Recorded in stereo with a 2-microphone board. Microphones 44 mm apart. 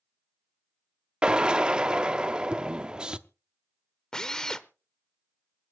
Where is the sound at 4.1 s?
15° left (ahead or behind), 0.8 m.